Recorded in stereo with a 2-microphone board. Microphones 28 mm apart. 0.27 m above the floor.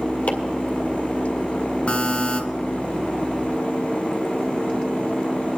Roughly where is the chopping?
Left.